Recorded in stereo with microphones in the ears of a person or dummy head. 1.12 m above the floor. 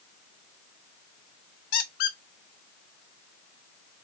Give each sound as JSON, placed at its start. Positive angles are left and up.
{"t": 1.7, "sound": "a squeak", "side_deg": 45, "distance_m": 0.6}